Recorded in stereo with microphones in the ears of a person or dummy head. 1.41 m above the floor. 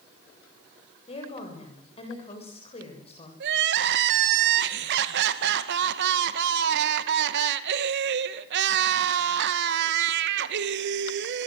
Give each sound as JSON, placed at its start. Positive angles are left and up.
{"t": 1.1, "sound": "a woman speaking", "side_deg": 35, "distance_m": 7.5}
{"t": 3.4, "sound": "crying", "side_deg": -65, "distance_m": 1.7}